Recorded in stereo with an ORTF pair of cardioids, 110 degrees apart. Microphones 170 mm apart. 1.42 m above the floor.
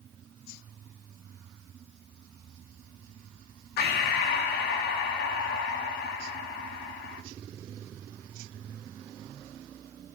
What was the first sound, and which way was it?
Breathing, 65° left.